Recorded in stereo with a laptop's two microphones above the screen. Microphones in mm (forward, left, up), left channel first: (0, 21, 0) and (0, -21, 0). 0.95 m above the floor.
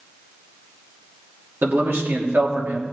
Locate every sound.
1.6 s a man speaking: 55° right (ahead or behind), 2.5 m